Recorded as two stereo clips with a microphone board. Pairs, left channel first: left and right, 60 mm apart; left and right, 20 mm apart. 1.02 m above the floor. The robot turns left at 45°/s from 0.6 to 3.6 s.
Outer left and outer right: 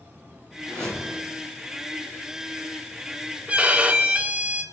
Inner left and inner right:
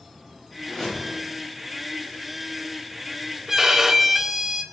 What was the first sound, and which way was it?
A whoosh, 15° left (ahead or behind).